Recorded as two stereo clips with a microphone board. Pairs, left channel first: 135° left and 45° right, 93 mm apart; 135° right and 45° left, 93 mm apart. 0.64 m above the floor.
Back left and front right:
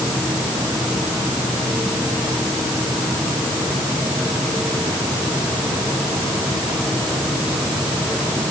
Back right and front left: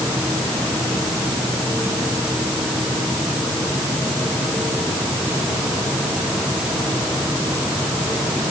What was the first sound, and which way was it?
Only background noise.